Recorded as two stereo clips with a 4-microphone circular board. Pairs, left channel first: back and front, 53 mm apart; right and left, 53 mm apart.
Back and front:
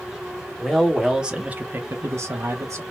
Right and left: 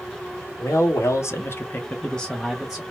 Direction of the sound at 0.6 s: 90° right.